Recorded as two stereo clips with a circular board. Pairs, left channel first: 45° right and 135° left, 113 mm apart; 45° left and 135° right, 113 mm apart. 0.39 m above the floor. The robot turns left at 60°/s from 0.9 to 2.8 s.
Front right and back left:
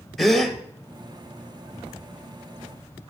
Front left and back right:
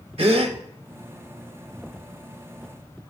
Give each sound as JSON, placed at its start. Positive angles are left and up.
{"t": 0.2, "sound": "a gasp", "azimuth_deg": -135, "distance_m": 0.8}